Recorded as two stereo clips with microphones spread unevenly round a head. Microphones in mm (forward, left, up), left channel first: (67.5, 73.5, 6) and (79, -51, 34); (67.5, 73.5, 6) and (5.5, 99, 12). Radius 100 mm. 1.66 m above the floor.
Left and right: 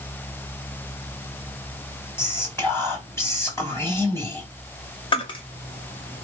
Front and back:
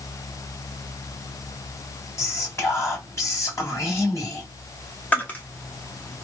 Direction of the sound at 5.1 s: 45° left.